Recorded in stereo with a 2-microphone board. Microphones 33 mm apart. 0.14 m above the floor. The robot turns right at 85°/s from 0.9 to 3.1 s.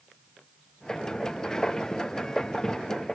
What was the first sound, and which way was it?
Only background noise.